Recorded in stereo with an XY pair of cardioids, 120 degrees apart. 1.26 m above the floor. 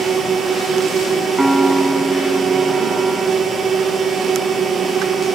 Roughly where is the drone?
Ahead right.